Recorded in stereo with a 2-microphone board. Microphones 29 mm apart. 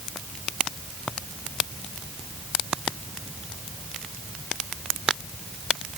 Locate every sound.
Only background noise.